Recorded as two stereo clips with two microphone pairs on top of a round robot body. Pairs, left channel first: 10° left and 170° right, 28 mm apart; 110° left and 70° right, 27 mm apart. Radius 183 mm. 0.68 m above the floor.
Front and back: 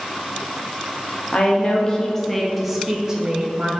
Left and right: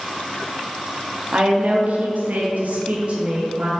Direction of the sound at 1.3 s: 35° right.